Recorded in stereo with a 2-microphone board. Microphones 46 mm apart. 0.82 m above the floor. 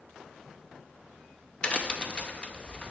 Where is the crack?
25° left (ahead or behind), 0.5 m.